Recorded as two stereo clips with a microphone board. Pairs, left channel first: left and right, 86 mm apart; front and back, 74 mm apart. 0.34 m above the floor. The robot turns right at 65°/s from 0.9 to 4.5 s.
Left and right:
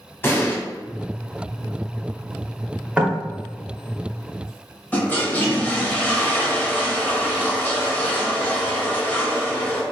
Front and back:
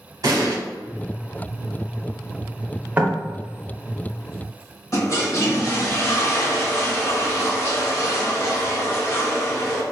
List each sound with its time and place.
0.2 s an explosion: 150° left, 0.9 m
3.0 s knocking: 150° right, 0.8 m; by 3.2 s 135° right, 0.8 m
4.9 s a toilet flushing: 25° left, 0.9 m